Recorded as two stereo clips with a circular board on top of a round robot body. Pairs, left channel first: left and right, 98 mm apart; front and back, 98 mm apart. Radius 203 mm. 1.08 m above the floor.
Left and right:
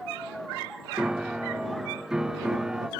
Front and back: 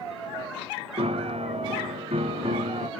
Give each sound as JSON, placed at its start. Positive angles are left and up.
{"t": 1.0, "sound": "a piano", "azimuth_deg": -175}